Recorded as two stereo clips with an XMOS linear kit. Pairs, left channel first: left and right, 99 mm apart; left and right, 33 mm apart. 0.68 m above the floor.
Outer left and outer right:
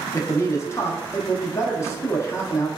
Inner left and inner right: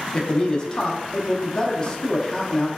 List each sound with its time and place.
0.1 s a man speaking: 30° left (ahead or behind), 0.7 m